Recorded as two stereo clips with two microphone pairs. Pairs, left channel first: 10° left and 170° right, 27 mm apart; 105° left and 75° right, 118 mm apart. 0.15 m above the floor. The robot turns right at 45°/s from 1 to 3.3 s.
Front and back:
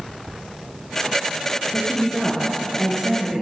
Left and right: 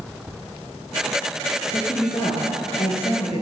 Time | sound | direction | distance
1.7 | a woman speaking | 55° left | 2.5 m